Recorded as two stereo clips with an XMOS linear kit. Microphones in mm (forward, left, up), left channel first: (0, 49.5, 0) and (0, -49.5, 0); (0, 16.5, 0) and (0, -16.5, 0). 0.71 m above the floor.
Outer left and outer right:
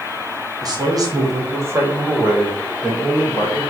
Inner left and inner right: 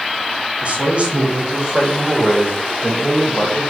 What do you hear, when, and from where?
0.6 s a man speaking: 40° right (ahead or behind), 1.0 m; by 3.6 s centre (ahead or behind), 2.0 m